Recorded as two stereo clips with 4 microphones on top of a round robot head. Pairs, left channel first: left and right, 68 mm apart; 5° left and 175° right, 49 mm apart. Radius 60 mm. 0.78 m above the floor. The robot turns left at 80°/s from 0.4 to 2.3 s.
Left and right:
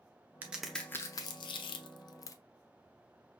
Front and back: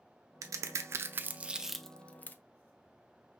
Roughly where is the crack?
Behind.